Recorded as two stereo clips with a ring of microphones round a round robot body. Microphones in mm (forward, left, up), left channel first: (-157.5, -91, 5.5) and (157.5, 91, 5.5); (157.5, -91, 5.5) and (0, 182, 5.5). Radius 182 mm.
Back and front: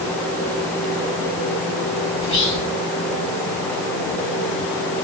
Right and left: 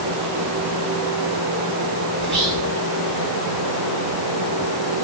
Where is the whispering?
165° right, 1.6 m.